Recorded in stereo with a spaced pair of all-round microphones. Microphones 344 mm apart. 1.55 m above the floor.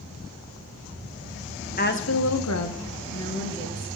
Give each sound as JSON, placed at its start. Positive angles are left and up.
{"t": 1.8, "sound": "a woman speaking", "side_deg": 25, "distance_m": 0.9}